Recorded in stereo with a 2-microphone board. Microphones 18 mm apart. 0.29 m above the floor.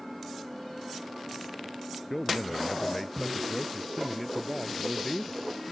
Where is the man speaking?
5° left (ahead or behind).